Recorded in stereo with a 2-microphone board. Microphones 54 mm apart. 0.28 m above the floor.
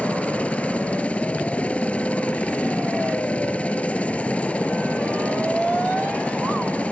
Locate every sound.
0.0 s a helicopter: 25° left (ahead or behind)